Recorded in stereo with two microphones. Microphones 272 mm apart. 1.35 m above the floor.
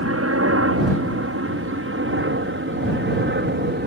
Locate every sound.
0.0 s a helicopter: 55° right (ahead or behind); by 3.9 s 40° right (ahead or behind)